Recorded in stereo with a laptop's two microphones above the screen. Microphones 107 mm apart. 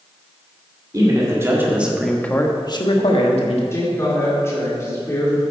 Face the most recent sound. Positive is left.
turn(degrees=25)  # may be behind; listen again after turning